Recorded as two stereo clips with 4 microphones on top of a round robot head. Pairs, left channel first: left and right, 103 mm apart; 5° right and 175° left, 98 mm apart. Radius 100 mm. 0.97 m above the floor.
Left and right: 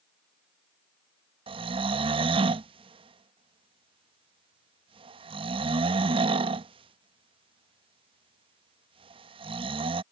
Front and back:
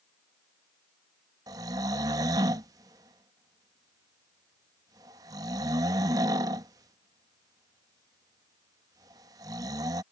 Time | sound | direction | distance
1.5 | snoring | 125° right | ?